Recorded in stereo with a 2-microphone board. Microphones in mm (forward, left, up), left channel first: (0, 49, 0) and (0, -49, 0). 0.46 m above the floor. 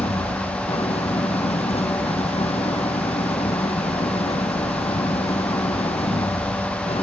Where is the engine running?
80° left.